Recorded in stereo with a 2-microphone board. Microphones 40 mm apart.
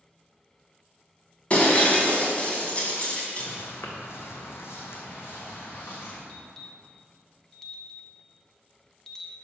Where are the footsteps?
65° left (ahead or behind), 1.5 m; by 6.2 s 50° left (ahead or behind), 2.5 m.